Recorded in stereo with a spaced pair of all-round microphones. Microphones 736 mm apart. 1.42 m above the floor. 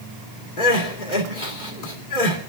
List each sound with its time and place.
0.6 s crying: 80° left, 2.5 m